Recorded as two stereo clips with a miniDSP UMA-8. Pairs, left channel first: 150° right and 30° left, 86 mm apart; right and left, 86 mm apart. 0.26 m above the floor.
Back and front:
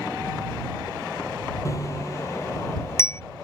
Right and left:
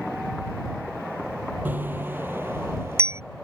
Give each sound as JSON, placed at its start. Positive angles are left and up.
{"t": 1.6, "sound": "a bicycle bell", "azimuth_deg": 160}